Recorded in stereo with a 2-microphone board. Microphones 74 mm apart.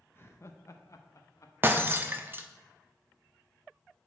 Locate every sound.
0.1 s laughter: 30° left (ahead or behind), 0.6 m; by 1.5 s 45° left (ahead or behind), 1.0 m
1.6 s breaking glass: 30° right (ahead or behind), 0.6 m